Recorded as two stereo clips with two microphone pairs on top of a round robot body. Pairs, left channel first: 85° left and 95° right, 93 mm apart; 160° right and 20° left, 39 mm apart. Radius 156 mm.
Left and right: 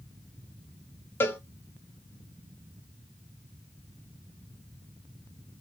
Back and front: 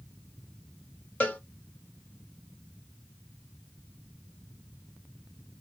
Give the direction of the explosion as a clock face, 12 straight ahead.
I don't hear an explosion.